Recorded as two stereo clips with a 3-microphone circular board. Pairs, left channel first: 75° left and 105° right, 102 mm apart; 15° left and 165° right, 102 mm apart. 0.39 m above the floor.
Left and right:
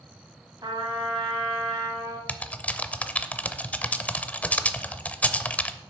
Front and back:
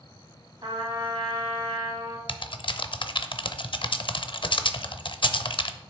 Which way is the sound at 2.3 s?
Straight ahead.